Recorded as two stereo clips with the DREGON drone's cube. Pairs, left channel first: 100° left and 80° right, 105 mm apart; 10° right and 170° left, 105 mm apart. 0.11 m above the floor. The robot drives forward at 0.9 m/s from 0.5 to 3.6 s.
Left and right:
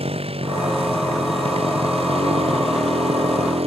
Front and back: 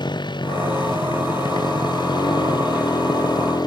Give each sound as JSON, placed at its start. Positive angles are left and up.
{"t": 0.0, "sound": "a motorcycle", "azimuth_deg": -60}